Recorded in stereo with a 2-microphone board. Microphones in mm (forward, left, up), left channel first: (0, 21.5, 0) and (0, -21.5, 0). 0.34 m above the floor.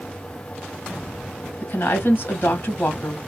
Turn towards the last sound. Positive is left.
turn(degrees=50)  # may be behind; listen again after turning